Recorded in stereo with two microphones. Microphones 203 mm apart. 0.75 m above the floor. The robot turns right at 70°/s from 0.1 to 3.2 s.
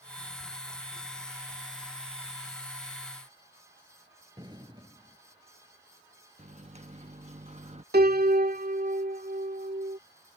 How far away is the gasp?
No gasp in this recording.